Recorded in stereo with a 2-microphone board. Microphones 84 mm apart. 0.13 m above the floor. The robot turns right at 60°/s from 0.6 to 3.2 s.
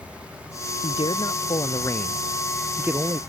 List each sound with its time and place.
0.8 s a man speaking: 80° left; by 3.2 s 135° right